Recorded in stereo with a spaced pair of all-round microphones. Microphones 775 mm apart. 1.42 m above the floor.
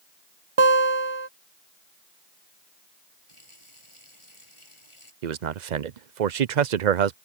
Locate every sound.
0.6 s a guitar: 40° right (ahead or behind)
3.3 s a running tap: 35° left (ahead or behind)
5.2 s a man speaking: 60° right (ahead or behind)